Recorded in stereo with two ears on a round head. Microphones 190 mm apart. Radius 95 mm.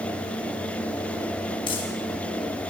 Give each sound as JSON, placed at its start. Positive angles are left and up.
{"t": 1.7, "sound": "crumpling", "side_deg": 25, "distance_m": 5.5}